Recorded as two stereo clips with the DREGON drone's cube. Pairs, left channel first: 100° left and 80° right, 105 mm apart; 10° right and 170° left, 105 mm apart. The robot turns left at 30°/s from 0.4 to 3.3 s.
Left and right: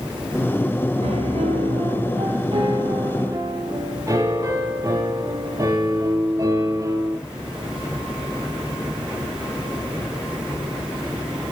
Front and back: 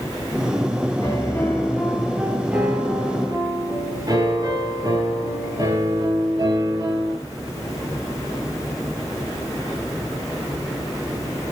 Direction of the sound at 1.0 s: 70° right.